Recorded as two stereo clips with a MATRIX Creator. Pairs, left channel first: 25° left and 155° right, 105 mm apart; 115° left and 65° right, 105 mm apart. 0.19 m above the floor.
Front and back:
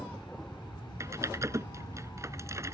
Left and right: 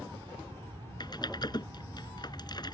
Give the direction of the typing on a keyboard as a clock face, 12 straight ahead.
7 o'clock.